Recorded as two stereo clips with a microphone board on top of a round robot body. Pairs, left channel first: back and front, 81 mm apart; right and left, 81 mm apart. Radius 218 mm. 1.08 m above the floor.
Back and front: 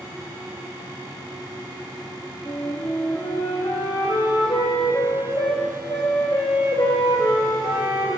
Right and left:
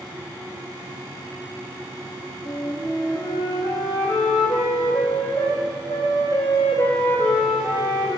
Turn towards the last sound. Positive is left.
turn(degrees=-140)